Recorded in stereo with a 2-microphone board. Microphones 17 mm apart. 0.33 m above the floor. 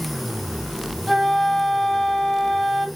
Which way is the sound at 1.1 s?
Centre (ahead or behind).